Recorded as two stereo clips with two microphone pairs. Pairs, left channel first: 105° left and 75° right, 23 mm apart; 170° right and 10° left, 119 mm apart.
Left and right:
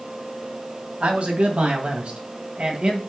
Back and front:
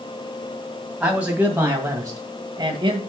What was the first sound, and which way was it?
A man speaking, 70° right.